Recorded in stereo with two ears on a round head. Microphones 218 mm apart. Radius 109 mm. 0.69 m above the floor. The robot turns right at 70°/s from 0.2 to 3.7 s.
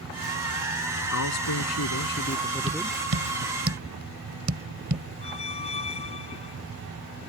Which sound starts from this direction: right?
Tapping, at 2.7 s.